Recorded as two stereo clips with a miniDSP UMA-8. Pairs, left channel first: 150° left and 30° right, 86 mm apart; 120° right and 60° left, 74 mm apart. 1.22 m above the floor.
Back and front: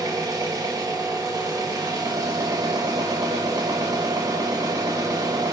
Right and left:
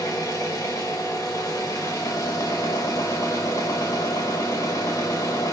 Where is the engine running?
75° right, 0.8 m.